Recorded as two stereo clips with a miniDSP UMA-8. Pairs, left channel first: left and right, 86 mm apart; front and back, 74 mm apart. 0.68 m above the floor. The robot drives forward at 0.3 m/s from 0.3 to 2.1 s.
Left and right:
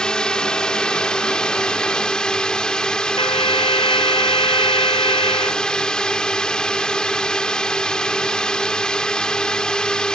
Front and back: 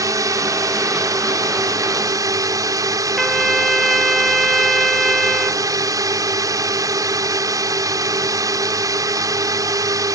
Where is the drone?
170° left.